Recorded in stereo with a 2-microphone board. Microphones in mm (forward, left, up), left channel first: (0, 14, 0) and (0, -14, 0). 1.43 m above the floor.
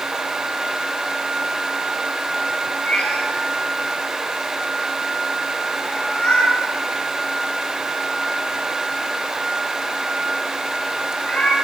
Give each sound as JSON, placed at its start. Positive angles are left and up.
{"t": 2.9, "sound": "a cat meowing", "side_deg": 60, "distance_m": 7.5}